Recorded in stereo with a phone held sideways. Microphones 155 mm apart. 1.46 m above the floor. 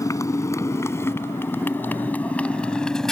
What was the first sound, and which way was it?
A motorcycle, 20° left (ahead or behind).